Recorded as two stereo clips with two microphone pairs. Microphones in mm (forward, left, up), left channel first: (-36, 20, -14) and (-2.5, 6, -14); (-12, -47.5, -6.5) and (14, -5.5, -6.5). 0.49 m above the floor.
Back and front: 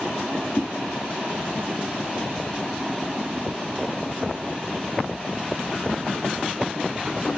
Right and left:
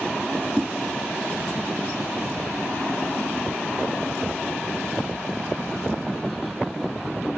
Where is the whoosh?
160° left, 1.0 m.